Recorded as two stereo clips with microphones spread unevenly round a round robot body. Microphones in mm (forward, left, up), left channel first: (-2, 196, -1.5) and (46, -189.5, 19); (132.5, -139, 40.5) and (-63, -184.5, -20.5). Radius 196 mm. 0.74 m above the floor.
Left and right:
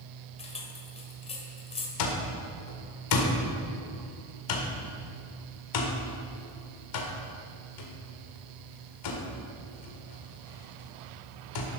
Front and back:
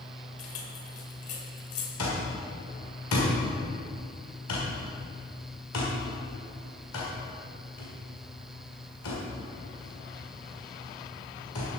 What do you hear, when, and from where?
0.4 s keys jangling: 20° left, 1.8 m
2.0 s an alarm clock: 60° left, 1.7 m